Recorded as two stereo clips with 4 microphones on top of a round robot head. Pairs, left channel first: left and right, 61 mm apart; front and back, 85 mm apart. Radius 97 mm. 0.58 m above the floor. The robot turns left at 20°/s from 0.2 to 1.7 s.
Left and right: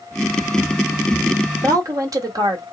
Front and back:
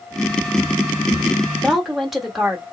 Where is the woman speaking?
90° right, 1.6 m; by 2.6 s 95° right, 1.6 m.